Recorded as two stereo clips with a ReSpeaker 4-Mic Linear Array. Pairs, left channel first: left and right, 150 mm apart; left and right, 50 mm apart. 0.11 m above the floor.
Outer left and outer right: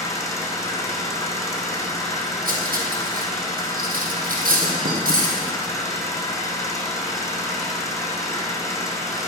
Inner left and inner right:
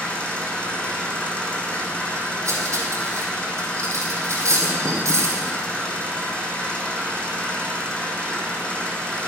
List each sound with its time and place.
0.0 s an engine running: 20° left (ahead or behind), 2 m
2.5 s cutlery clinking: 70° right (ahead or behind), 2.5 m